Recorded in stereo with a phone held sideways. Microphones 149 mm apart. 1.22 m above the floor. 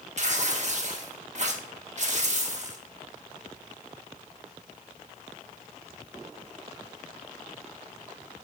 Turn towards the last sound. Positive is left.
turn(degrees=-50)  # may be behind; listen again after turning